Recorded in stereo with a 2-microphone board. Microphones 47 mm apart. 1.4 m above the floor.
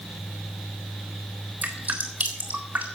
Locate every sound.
1.6 s dripping: 35° right (ahead or behind), 3.5 m